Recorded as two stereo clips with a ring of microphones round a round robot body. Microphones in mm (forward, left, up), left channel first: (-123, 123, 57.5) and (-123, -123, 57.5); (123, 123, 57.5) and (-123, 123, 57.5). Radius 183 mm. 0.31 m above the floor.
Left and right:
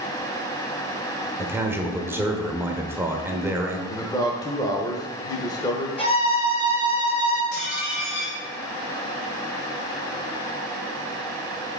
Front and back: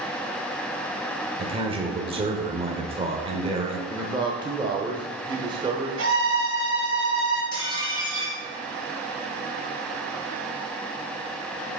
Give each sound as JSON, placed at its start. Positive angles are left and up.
{"t": 1.4, "sound": "a man speaking", "azimuth_deg": -155, "distance_m": 1.0}
{"t": 3.9, "sound": "a man speaking", "azimuth_deg": 140, "distance_m": 0.9}
{"t": 6.0, "sound": "a violin", "azimuth_deg": 155, "distance_m": 2.5}
{"t": 7.5, "sound": "dishes clattering", "azimuth_deg": 50, "distance_m": 3.0}